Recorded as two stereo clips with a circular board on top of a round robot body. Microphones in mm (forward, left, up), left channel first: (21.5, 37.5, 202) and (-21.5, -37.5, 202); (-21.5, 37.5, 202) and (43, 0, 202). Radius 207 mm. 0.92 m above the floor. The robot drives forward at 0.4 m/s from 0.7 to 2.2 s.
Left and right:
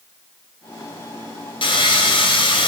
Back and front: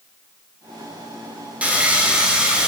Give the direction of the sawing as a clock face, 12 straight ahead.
11 o'clock.